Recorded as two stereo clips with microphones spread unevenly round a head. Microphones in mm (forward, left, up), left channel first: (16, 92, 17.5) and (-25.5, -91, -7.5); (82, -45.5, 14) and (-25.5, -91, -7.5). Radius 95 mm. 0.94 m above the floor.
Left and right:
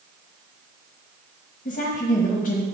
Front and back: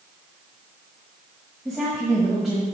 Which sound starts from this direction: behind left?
A woman speaking, at 1.6 s.